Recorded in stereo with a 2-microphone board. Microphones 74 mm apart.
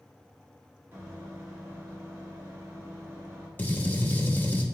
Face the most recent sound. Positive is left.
turn(degrees=25)  # may be behind; listen again after turning